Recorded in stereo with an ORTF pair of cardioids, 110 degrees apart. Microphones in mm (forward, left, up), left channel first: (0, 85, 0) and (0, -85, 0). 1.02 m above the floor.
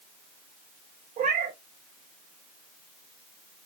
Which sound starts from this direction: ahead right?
A cat meowing, at 1.2 s.